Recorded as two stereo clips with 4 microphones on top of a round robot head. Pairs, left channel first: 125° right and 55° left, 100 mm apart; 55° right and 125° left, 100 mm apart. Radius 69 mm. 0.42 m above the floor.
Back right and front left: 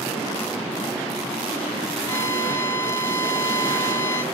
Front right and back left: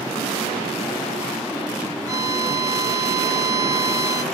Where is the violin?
175° left, 1.3 m.